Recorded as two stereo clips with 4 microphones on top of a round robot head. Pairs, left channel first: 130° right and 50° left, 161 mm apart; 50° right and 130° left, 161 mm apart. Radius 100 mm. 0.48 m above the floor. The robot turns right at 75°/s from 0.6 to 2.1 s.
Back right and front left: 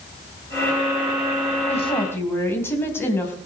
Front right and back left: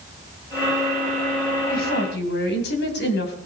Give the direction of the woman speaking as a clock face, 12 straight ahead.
3 o'clock.